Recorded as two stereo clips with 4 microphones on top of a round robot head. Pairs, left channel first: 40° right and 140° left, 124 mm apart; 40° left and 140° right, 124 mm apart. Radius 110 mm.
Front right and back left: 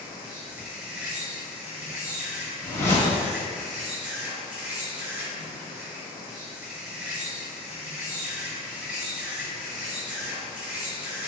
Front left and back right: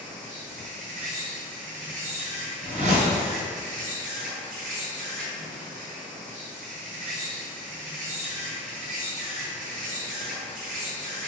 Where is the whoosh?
110° right, 1.2 m.